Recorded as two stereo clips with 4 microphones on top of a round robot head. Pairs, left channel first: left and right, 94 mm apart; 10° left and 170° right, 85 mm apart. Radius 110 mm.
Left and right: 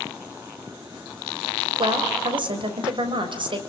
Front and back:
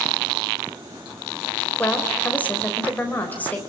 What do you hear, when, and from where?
1.8 s a woman speaking: 60° right, 4 m